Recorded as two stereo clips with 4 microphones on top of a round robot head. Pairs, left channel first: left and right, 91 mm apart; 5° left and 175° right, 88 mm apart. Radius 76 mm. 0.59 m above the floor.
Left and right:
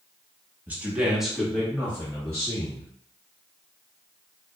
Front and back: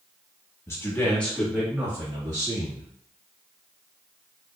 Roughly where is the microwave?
I don't hear a microwave.